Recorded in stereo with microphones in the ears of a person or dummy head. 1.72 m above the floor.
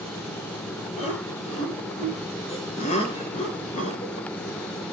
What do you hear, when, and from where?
1.0 s laughter: 35° left (ahead or behind), 8.5 m